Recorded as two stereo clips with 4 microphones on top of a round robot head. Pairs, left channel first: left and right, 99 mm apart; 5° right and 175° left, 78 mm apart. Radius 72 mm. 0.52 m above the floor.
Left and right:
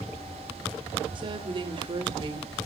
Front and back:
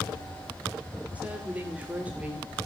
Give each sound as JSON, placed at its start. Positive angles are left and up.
{"t": 1.1, "sound": "a woman speaking", "azimuth_deg": -110, "distance_m": 2.5}